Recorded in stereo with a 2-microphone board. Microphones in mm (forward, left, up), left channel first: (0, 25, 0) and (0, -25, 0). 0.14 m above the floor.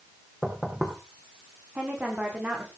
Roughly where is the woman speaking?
Right.